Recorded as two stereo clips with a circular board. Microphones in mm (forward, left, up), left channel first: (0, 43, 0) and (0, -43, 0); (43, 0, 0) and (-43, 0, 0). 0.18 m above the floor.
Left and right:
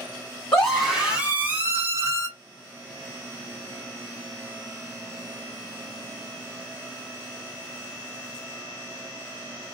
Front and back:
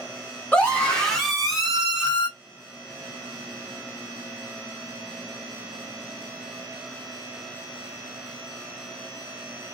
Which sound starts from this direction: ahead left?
A scream, at 0.5 s.